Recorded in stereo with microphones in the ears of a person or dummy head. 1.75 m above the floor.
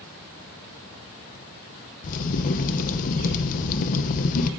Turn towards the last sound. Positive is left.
turn(degrees=45)  # may be behind; listen again after turning